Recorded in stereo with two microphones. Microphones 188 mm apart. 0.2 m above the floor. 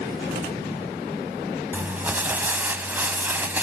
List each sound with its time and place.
1.7 s crumpling: 10° right (ahead or behind), 0.6 m